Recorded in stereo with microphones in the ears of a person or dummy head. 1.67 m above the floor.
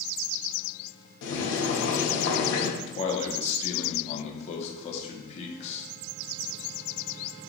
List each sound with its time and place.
1.2 s boiling: 70° left (ahead or behind), 1.1 m
2.8 s a man speaking: 40° left (ahead or behind), 0.9 m